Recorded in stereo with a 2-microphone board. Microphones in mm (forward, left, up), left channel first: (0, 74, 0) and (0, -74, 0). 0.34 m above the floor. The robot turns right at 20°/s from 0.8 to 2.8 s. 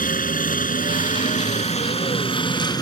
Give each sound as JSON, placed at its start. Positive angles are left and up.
{"t": 0.0, "sound": "a helicopter", "side_deg": 65}